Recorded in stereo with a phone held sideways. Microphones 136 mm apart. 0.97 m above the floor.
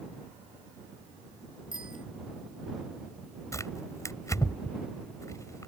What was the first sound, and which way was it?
A bicycle bell, 70° left (ahead or behind).